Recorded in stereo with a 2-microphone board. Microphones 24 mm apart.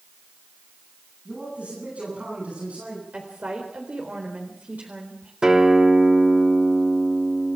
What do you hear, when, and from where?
1.2 s a man speaking: 65° right (ahead or behind), 9.5 m; by 3.0 s 75° right (ahead or behind), 10 m
3.1 s a woman speaking: 70° right (ahead or behind), 4 m
5.4 s a guitar: 30° right (ahead or behind), 3.5 m